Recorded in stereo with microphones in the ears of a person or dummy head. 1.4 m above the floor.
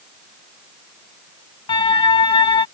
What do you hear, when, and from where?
1.7 s a siren: 25° left (ahead or behind)